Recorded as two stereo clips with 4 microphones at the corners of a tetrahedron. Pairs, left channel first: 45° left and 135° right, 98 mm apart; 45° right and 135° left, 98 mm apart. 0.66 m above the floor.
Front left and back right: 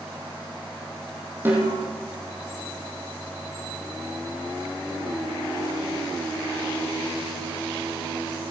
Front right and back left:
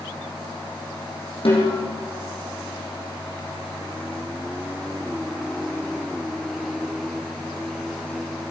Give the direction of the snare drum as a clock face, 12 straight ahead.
2 o'clock.